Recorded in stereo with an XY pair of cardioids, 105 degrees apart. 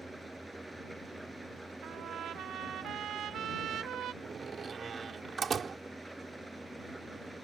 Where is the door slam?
45° right.